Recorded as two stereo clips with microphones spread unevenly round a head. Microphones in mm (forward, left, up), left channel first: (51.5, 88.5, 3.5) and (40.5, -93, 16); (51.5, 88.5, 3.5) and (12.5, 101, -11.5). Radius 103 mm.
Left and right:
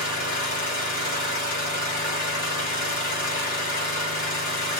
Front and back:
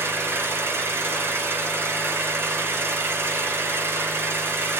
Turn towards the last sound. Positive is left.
turn(degrees=125)